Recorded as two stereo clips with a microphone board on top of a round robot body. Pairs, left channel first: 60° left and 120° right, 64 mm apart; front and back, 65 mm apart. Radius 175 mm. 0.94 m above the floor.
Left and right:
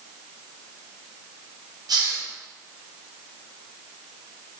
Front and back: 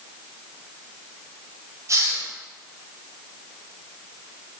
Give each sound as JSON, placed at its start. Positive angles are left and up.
{"t": 1.9, "sound": "a hiss", "azimuth_deg": -135, "distance_m": 4.0}